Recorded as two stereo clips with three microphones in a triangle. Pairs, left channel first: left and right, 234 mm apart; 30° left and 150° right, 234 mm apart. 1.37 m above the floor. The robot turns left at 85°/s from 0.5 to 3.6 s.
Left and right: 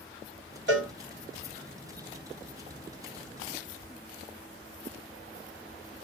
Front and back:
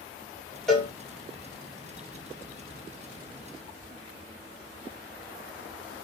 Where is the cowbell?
55° right, 1.2 m; by 0.9 s 75° right, 1.2 m.